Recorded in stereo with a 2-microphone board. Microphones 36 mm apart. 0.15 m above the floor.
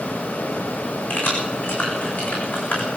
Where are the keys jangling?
75° left (ahead or behind), 9 m; by 2.9 s 80° left, 8.5 m.